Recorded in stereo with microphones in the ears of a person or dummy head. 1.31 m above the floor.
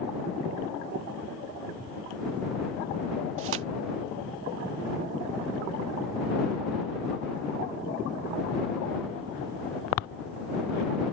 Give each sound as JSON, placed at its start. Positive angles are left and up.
{"t": 3.4, "sound": "tearing paper", "side_deg": -75}